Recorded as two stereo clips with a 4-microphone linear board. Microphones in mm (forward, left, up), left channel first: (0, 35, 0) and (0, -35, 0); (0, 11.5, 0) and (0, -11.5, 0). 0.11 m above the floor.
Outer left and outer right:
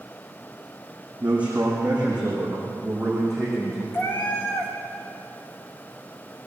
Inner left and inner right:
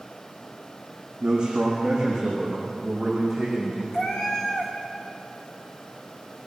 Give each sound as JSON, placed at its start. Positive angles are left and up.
{"t": 1.2, "sound": "a man speaking", "side_deg": -20, "distance_m": 5.0}
{"t": 3.9, "sound": "a cat meowing", "side_deg": 30, "distance_m": 3.5}